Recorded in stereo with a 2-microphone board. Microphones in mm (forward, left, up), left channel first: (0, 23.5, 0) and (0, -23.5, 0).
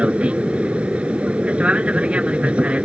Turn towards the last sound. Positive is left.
turn(degrees=-25)  # may be behind; listen again after turning